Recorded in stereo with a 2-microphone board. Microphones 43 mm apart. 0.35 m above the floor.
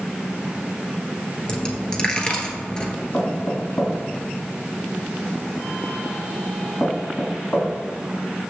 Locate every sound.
1.5 s a dropped coin: 20° left (ahead or behind), 1.1 m
3.1 s knocking: 45° left (ahead or behind), 2.5 m